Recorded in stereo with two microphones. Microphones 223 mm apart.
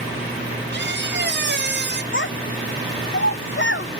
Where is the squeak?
50° right (ahead or behind), 0.8 m.